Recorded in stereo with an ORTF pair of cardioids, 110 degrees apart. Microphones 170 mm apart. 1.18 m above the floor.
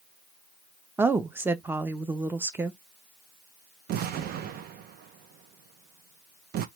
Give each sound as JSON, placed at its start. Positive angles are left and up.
{"t": 1.0, "sound": "a woman speaking", "azimuth_deg": -10, "distance_m": 0.6}
{"t": 3.9, "sound": "an explosion", "azimuth_deg": -65, "distance_m": 0.6}